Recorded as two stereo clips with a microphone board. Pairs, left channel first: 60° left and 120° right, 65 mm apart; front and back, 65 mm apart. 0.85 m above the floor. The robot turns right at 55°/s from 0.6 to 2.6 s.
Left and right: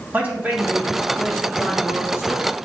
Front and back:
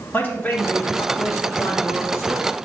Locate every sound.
0.1 s a man speaking: 60° right, 1.9 m; by 2.5 s 50° left, 1.9 m